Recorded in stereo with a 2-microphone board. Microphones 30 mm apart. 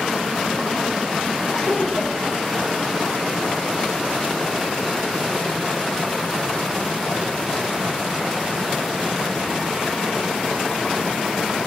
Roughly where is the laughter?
Left.